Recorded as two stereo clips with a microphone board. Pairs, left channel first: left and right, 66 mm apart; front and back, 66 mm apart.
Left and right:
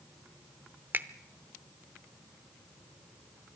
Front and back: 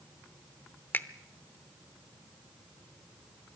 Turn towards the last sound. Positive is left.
turn(degrees=-45)